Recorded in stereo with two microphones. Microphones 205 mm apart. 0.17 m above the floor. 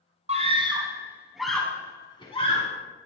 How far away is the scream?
About 1.6 m.